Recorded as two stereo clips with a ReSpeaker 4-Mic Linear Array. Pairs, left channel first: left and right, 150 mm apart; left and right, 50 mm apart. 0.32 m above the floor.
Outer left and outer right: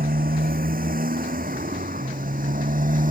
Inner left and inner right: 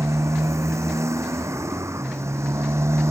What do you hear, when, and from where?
0.0 s a motorcycle: 75° right (ahead or behind); by 3.1 s 65° right (ahead or behind)